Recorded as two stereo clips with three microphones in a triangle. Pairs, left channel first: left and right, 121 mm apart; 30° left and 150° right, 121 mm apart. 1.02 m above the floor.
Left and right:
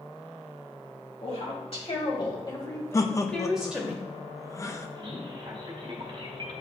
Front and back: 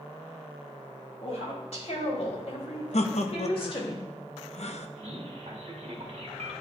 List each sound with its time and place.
1.2 s a woman speaking: 60° left, 3.5 m; by 3.9 s 20° right, 1.9 m
2.9 s laughter: 30° left, 0.7 m
5.0 s a man speaking: 130° right, 1.6 m